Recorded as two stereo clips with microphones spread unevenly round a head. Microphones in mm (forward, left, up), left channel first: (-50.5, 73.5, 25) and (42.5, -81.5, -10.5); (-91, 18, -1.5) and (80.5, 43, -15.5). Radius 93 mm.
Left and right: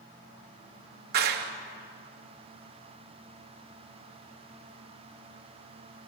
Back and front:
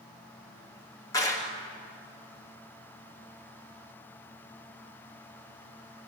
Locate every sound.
1.1 s a clap: 100° right, 1.9 m